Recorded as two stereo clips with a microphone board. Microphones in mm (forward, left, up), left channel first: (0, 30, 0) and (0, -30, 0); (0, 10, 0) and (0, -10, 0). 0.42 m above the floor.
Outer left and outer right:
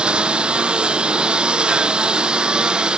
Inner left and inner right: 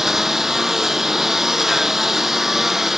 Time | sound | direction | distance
0.0 | a lawn mower | 20° right (ahead or behind) | ?